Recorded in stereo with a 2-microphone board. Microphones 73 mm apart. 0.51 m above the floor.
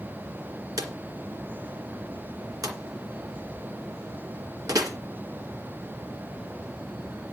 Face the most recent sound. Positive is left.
turn(degrees=-60)  # may be behind; listen again after turning